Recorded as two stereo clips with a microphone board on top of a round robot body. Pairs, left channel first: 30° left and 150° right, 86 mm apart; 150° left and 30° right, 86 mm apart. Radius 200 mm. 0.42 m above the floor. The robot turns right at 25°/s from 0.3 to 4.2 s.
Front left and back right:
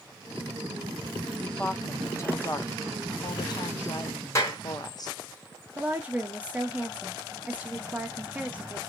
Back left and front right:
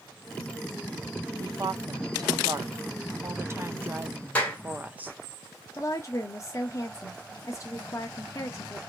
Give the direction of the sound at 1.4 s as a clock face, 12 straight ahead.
1 o'clock.